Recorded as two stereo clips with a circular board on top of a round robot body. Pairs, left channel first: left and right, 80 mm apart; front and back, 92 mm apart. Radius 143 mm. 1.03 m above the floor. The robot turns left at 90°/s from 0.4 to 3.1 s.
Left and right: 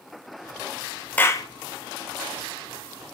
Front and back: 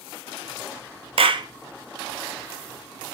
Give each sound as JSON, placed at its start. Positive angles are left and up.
{"t": 1.2, "sound": "a clap", "azimuth_deg": 160, "distance_m": 0.6}